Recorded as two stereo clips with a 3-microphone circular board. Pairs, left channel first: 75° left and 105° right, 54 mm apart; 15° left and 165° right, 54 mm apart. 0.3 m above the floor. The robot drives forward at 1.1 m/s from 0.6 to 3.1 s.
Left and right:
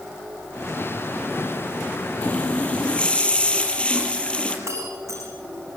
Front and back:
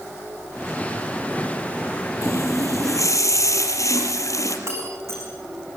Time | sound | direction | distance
2.2 | a running tap | 5° left | 6 m
4.7 | breaking glass | 130° right | 9 m